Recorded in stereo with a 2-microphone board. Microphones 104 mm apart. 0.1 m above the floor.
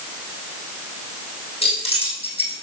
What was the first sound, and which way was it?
Keys jangling, 70° left (ahead or behind).